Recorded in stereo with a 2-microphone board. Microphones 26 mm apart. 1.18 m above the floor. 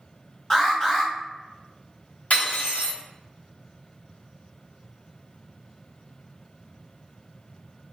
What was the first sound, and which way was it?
An alarm, 20° left (ahead or behind).